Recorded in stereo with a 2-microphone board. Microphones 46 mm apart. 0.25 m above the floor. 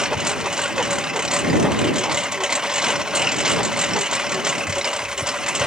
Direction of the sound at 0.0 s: 15° right (ahead or behind).